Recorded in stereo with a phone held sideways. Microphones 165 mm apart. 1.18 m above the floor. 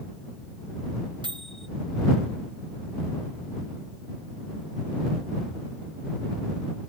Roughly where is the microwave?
Right.